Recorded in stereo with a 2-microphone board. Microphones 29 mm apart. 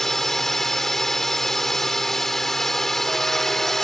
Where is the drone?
10° left (ahead or behind).